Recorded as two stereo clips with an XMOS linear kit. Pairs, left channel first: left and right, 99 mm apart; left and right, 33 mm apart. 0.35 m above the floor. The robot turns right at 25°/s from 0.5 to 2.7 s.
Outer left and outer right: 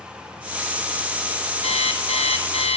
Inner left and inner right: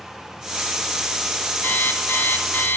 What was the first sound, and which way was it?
An alarm clock, 80° left.